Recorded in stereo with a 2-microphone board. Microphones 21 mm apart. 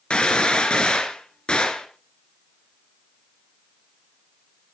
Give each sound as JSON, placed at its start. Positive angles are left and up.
{"t": 0.1, "sound": "a gunshot", "side_deg": 60, "distance_m": 3.5}